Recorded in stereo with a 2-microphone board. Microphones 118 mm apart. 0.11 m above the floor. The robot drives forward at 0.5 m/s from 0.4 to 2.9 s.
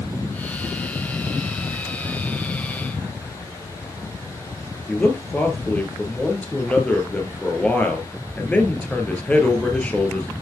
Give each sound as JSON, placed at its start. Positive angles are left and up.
{"t": 4.9, "sound": "a man speaking", "side_deg": 10, "distance_m": 1.6}